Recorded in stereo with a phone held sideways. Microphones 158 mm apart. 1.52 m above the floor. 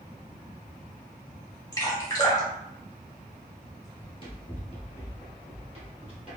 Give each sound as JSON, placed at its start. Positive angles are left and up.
{"t": 1.7, "sound": "dripping", "side_deg": 20, "distance_m": 1.3}
{"t": 4.0, "sound": "running footsteps", "side_deg": 35, "distance_m": 1.7}